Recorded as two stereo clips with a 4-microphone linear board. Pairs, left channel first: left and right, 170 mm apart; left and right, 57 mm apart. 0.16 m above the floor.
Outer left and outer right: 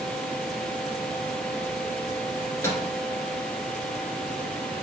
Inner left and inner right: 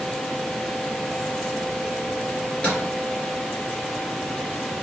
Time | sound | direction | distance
2.4 | a microwave | 15° left (ahead or behind) | 1.9 m